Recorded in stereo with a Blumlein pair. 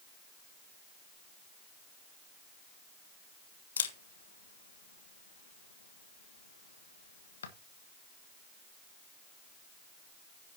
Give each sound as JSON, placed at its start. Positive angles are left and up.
{"t": 3.8, "sound": "a camera shutter", "azimuth_deg": 65, "distance_m": 1.5}